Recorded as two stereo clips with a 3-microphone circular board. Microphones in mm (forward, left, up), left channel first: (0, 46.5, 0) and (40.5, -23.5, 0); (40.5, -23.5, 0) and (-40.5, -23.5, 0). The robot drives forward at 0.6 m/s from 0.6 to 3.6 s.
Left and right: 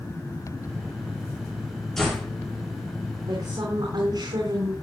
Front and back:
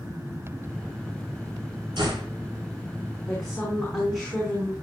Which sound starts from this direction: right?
A woman speaking, at 3.3 s.